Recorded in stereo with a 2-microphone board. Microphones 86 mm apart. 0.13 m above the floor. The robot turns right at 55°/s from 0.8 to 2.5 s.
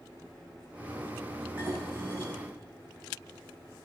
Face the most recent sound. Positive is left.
turn(degrees=-100)